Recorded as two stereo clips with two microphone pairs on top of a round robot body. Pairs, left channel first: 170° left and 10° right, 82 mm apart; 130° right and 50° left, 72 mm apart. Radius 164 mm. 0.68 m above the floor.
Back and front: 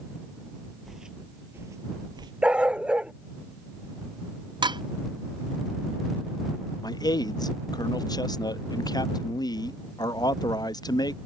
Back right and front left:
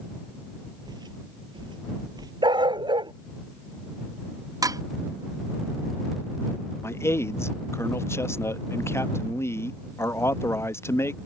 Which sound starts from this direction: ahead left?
A dog barking, at 2.4 s.